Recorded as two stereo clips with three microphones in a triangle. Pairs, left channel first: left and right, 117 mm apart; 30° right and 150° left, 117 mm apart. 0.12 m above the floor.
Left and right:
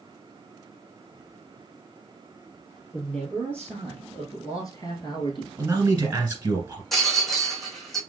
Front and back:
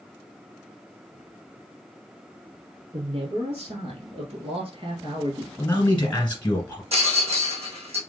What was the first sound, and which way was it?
A man speaking, 175° left.